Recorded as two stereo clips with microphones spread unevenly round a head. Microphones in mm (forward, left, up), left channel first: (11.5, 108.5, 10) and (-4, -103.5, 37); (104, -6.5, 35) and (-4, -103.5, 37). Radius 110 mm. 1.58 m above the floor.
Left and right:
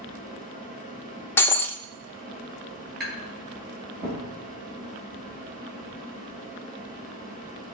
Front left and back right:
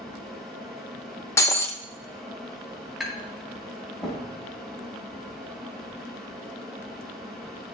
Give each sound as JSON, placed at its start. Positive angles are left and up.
{"t": 0.0, "sound": "a fan", "azimuth_deg": -45, "distance_m": 4.5}
{"t": 1.4, "sound": "breaking glass", "azimuth_deg": 0, "distance_m": 0.7}
{"t": 3.0, "sound": "tapping", "azimuth_deg": -50, "distance_m": 6.0}